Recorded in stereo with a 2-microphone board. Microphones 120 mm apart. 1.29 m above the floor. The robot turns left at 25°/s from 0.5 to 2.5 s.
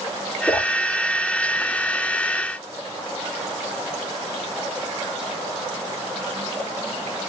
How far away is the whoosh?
About 1.0 m.